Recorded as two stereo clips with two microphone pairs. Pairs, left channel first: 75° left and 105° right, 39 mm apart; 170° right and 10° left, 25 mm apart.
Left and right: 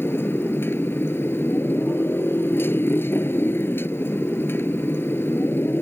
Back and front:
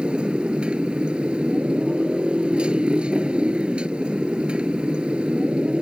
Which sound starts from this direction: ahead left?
A motorcycle, at 0.0 s.